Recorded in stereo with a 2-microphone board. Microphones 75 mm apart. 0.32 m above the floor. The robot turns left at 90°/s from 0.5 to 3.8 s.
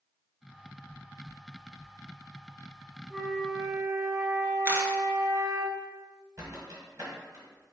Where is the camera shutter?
30° right (ahead or behind), 1.0 m.